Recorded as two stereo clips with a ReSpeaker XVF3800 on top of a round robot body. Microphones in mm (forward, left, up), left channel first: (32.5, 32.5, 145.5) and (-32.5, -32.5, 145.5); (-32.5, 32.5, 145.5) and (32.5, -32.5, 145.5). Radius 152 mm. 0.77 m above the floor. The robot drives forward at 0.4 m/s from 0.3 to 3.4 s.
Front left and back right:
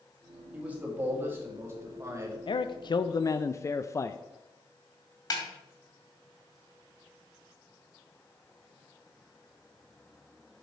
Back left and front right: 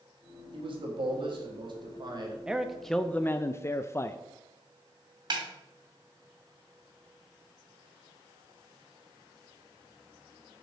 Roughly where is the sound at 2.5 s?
Ahead left.